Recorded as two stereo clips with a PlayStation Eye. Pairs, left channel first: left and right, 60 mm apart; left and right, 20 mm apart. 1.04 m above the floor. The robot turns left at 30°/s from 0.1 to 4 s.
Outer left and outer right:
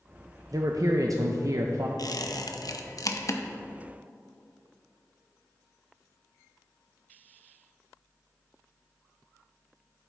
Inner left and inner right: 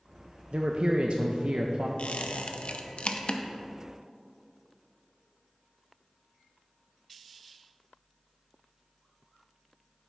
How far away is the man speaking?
About 0.5 m.